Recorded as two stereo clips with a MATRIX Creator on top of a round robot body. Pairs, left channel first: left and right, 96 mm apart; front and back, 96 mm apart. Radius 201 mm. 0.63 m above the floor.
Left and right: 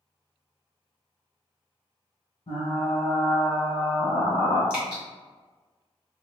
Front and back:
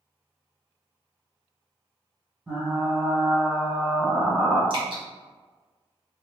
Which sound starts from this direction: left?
Frying, at 2.5 s.